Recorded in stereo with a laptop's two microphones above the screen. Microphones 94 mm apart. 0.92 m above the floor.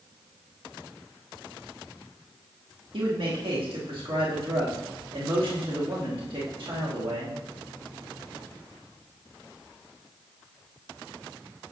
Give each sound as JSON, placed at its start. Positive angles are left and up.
{"t": 2.9, "sound": "a man speaking", "side_deg": -65, "distance_m": 2.0}